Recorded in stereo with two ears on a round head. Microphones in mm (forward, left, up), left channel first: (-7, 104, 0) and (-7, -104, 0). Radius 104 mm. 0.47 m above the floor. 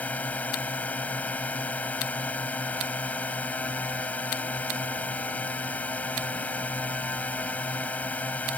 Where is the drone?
5° left (ahead or behind).